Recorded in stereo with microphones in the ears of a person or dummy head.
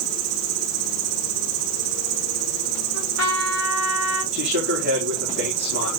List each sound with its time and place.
0.0 s an insect: 85° right, 0.7 m
2.9 s a trumpet: 70° right (ahead or behind), 3 m
4.3 s a man speaking: 55° right (ahead or behind), 4 m